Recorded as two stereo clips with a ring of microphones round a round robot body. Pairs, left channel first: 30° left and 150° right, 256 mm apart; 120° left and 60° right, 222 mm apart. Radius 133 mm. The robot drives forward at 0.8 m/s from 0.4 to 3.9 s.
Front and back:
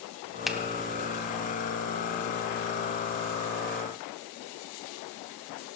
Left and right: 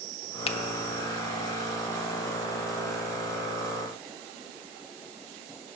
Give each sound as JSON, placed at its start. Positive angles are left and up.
{"t": 0.5, "sound": "a finger snap", "azimuth_deg": 120, "distance_m": 0.7}